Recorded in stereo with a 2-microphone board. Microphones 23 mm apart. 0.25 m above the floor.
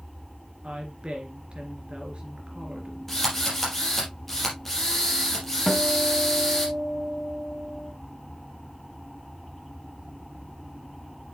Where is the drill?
15° left (ahead or behind), 4 m.